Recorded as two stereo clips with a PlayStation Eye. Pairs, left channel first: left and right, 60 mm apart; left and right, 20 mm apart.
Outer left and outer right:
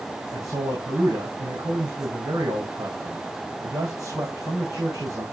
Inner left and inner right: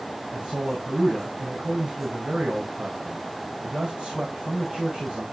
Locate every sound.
0.3 s a man speaking: 75° right (ahead or behind), 9.5 m